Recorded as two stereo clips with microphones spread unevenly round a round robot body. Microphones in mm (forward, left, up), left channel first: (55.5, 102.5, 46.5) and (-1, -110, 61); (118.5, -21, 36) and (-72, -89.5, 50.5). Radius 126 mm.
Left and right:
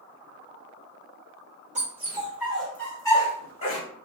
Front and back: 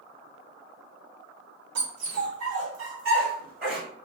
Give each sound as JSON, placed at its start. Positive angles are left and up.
{"t": 1.8, "sound": "a dog barking", "azimuth_deg": -165, "distance_m": 1.1}